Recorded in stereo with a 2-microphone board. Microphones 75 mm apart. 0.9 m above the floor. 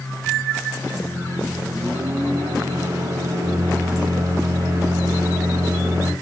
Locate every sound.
0.9 s a microwave: 45° right (ahead or behind), 1.4 m